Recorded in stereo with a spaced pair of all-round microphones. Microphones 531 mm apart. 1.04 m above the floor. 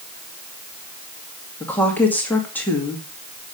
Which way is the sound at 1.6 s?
5° left (ahead or behind).